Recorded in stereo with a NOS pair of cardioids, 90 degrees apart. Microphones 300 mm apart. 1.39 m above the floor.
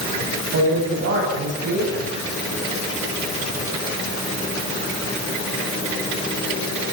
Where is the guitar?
I don't hear a guitar.